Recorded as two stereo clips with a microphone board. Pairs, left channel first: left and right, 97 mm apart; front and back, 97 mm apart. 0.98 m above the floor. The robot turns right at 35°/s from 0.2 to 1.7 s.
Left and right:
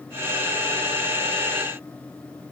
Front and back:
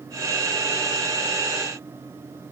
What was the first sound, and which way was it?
Only background noise.